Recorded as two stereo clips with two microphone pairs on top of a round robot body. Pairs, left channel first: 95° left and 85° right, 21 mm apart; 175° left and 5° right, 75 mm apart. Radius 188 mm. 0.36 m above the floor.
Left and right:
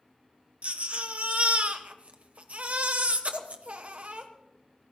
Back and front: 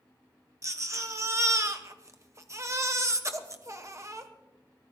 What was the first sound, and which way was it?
A baby crying, 55° right.